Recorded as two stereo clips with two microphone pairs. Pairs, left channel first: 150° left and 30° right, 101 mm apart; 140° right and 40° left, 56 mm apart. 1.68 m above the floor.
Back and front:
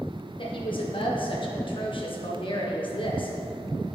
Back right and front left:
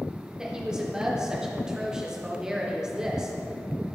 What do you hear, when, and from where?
0.4 s a woman speaking: 120° left, 1.5 m